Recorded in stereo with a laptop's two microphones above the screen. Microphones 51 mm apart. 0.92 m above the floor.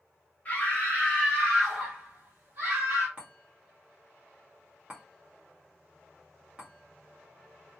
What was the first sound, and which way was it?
A scream, 30° left (ahead or behind).